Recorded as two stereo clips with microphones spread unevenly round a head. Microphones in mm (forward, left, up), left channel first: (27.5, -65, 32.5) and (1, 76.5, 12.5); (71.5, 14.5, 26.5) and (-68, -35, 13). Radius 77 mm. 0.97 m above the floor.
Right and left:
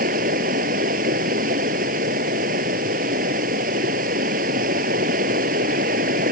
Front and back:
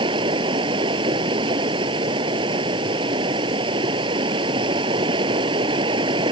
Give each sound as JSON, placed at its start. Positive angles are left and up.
{"t": 0.0, "sound": "running water", "azimuth_deg": 135}